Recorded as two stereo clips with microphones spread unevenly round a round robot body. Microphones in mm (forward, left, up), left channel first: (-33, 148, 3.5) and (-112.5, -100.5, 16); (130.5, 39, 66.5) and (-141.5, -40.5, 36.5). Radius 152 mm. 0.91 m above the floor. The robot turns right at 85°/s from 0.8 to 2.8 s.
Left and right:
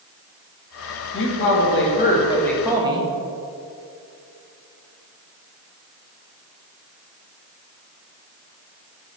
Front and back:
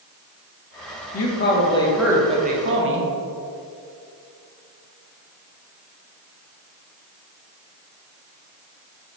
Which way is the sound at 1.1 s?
40° left.